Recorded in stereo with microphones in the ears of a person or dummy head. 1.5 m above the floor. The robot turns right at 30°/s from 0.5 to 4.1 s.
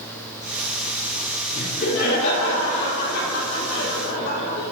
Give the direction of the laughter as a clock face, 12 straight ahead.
11 o'clock.